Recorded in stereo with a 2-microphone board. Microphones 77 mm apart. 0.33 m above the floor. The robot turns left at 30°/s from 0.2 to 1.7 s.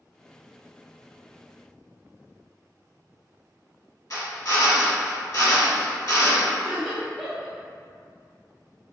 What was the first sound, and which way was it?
A drill, 50° left (ahead or behind).